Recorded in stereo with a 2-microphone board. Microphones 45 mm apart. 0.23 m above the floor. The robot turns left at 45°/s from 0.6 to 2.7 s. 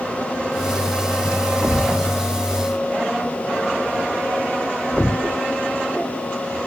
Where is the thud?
35° right (ahead or behind); by 5.4 s 15° left (ahead or behind).